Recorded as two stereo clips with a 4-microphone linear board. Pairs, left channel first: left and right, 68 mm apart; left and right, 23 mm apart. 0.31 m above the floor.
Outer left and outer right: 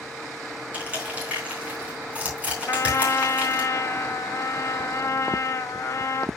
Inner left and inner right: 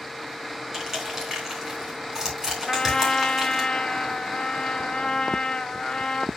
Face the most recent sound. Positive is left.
turn(degrees=45)  # may be behind; listen again after turning